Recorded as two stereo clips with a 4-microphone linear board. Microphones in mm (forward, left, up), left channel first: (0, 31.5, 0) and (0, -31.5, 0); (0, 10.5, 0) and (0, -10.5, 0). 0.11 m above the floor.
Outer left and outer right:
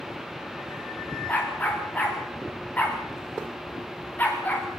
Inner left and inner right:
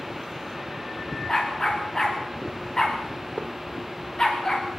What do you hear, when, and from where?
1.3 s a dog barking: 30° left (ahead or behind), 5 m